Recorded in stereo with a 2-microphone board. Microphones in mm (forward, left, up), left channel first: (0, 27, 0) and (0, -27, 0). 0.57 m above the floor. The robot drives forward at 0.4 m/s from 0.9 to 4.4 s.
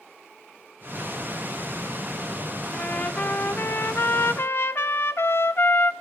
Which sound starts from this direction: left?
A trumpet, at 2.7 s.